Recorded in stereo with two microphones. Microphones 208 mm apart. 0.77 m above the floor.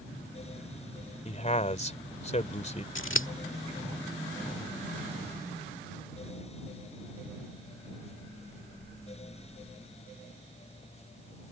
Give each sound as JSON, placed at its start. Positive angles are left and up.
{"t": 1.2, "sound": "a man speaking", "side_deg": 35}
{"t": 3.0, "sound": "scissors", "side_deg": 75}